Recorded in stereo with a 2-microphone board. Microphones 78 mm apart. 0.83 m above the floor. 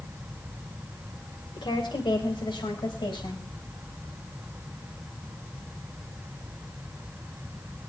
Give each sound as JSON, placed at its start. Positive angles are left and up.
{"t": 1.6, "sound": "a woman speaking", "side_deg": 80, "distance_m": 2.5}